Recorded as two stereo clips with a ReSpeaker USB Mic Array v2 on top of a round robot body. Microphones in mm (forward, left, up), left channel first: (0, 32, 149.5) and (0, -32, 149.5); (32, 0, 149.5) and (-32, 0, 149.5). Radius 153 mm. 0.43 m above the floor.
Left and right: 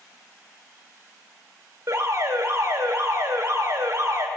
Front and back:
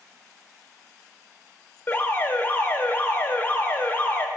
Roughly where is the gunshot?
No gunshot in this recording.